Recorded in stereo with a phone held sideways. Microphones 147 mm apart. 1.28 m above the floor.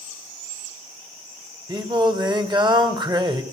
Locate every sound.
1.7 s singing: 30° right (ahead or behind), 1.9 m